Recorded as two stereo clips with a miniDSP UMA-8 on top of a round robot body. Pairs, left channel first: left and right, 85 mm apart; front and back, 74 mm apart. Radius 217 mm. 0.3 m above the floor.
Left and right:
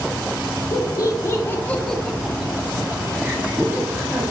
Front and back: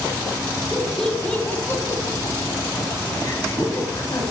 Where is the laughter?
100° left, 1.8 m; by 4.2 s 35° right, 4 m.